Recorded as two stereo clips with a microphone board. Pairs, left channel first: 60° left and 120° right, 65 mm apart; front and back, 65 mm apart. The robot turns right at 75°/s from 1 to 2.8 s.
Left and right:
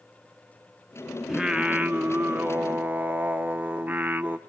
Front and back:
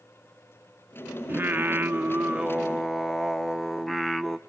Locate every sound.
1.3 s singing: 155° left, 0.5 m; by 4.4 s 90° right, 0.5 m